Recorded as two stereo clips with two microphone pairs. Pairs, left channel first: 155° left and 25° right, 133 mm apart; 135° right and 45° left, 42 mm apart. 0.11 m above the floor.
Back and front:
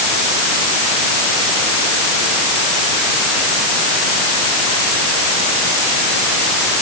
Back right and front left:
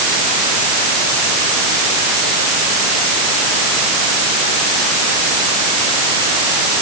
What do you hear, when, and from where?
Only background noise.